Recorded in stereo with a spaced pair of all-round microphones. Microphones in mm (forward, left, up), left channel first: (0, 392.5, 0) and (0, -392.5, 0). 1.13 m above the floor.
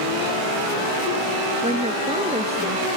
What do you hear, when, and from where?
1.6 s a woman speaking: 10° right (ahead or behind)